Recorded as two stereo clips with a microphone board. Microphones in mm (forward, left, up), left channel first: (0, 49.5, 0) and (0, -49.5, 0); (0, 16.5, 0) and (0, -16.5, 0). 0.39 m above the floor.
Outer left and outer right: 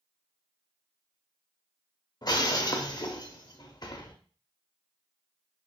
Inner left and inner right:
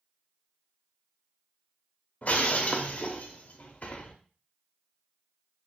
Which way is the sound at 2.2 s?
45° left (ahead or behind).